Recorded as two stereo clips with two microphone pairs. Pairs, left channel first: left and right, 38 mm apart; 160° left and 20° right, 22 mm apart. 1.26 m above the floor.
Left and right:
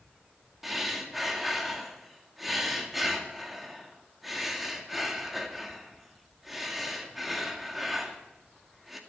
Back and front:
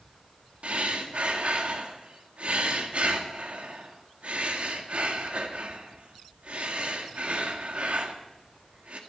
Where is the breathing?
5° right, 2 m.